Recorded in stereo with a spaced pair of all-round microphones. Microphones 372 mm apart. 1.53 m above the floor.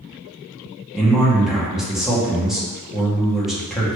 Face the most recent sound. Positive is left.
turn(degrees=0)  # may be behind; listen again after turning